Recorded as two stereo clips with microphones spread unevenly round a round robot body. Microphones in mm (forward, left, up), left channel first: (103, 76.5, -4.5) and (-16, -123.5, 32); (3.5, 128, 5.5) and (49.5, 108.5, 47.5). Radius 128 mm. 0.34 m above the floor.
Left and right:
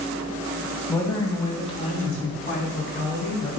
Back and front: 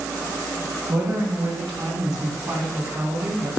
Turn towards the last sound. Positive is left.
turn(degrees=20)